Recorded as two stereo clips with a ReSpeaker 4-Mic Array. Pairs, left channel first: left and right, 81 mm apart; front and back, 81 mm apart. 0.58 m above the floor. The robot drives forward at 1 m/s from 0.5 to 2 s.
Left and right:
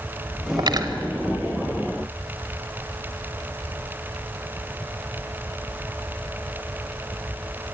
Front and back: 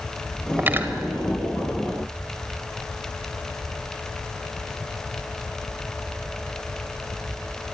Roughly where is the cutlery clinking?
Behind right.